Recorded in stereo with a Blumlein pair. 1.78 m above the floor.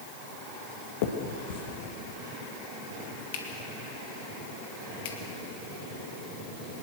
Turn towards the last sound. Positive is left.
turn(degrees=50)